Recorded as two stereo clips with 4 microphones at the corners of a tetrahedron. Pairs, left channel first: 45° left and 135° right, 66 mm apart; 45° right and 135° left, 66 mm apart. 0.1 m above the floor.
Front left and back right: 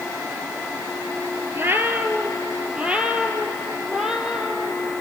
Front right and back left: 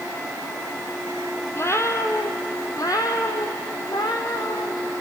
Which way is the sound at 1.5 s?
85° right.